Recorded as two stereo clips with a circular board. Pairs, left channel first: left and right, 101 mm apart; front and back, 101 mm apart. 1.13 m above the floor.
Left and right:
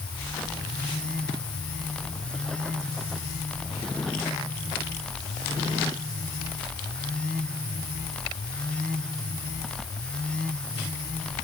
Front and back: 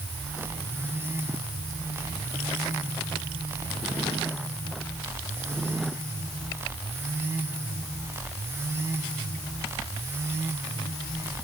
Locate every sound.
Only background noise.